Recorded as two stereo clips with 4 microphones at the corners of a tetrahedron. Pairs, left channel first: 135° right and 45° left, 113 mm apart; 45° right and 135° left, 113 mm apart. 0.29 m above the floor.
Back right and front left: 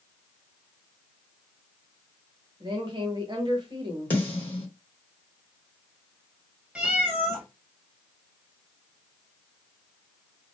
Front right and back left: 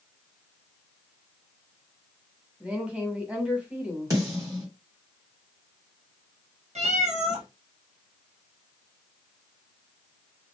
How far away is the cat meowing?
About 1.2 m.